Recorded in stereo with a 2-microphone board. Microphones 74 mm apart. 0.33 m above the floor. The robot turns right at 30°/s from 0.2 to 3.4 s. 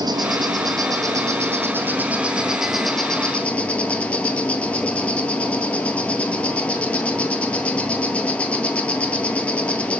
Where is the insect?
80° right, 0.7 m; by 10.0 s 15° left, 0.7 m.